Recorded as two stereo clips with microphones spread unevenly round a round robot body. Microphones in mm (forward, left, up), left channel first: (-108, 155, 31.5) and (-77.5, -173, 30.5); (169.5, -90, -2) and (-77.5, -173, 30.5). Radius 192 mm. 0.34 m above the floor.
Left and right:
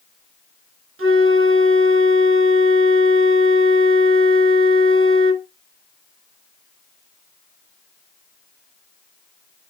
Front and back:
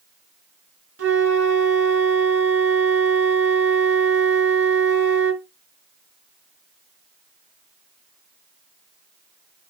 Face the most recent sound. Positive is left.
turn(degrees=-135)